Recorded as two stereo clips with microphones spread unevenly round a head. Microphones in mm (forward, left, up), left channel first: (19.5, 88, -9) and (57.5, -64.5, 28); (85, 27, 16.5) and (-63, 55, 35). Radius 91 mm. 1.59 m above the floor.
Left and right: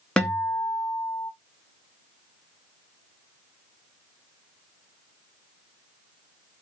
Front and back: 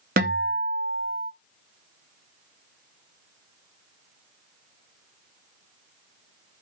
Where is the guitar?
165° right, 0.8 m.